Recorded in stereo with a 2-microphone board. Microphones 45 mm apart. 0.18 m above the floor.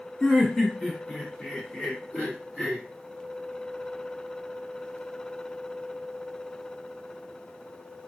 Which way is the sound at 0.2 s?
10° left (ahead or behind).